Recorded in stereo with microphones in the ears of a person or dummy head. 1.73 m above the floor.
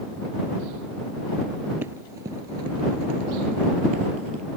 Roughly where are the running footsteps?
Centre.